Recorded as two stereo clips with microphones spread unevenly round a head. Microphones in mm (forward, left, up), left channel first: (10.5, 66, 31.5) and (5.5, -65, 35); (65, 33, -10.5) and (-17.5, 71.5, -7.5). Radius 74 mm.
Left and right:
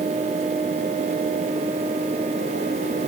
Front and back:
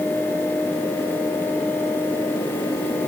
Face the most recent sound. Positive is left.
No sound to turn to.